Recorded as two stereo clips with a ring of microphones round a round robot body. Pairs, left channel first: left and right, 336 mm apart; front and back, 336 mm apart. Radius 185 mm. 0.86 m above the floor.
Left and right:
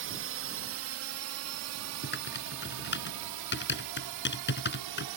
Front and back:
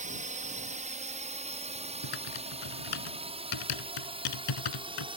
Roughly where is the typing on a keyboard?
Ahead left.